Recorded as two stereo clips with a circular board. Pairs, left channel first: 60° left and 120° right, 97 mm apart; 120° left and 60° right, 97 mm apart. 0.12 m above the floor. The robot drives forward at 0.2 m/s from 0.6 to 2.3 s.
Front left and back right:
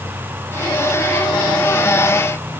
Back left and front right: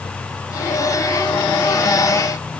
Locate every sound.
Only background noise.